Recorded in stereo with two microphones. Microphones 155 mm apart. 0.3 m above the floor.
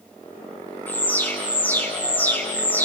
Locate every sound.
0.9 s an alarm: 10° left (ahead or behind), 2.5 m